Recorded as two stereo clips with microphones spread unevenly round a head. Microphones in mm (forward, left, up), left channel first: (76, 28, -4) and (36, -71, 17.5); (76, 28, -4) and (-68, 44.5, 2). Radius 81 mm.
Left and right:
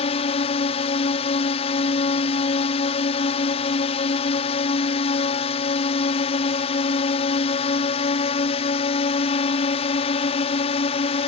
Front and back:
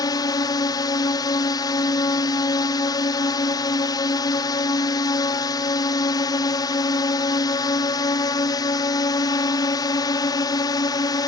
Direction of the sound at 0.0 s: 55° left.